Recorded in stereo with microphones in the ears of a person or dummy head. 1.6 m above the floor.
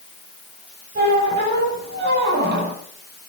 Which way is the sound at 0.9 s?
55° right (ahead or behind).